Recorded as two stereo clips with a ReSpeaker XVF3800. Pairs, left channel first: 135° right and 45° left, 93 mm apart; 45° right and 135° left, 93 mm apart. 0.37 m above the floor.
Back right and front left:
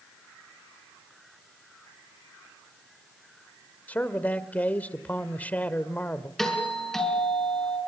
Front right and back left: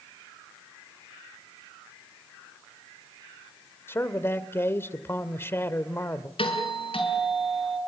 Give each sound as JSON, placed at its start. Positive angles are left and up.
{"t": 3.9, "sound": "a man speaking", "azimuth_deg": -80, "distance_m": 1.4}
{"t": 6.4, "sound": "a doorbell", "azimuth_deg": -50, "distance_m": 6.0}